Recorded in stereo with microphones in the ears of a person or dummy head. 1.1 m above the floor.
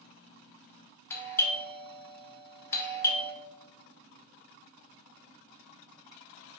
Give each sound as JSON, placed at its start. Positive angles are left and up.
{"t": 1.1, "sound": "a doorbell", "side_deg": 10, "distance_m": 0.6}